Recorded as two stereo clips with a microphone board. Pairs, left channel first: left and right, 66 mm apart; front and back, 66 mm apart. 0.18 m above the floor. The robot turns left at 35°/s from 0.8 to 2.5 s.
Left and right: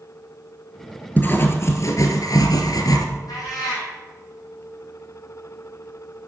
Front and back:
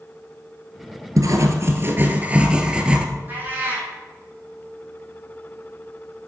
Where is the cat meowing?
115° left, 4 m.